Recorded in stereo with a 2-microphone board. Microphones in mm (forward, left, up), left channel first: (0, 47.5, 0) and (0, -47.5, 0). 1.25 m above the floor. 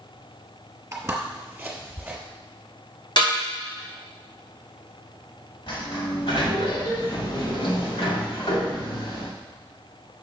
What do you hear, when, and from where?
0.9 s footsteps: 25° right (ahead or behind), 1.4 m; by 2.2 s 15° right (ahead or behind), 1.9 m
3.2 s a snare drum: 55° left (ahead or behind), 2.5 m
5.7 s a sliding door: 65° left (ahead or behind), 2 m